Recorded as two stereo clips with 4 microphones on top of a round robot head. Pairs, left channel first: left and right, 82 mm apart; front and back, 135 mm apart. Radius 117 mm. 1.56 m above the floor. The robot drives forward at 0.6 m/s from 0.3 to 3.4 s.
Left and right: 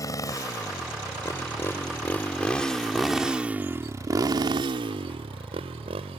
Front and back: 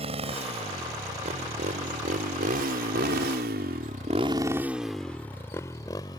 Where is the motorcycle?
135° left; by 6.2 s 70° right.